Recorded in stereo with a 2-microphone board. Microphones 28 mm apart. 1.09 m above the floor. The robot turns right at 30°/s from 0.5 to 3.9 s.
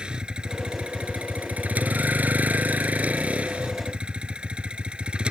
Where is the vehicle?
145° right; by 5.3 s 40° right.